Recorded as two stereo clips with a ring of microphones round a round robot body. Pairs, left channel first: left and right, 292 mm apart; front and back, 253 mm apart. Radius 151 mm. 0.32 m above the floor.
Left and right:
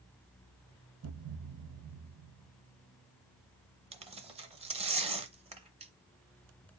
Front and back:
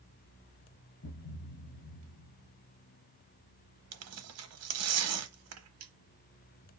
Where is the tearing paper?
160° right, 0.7 m.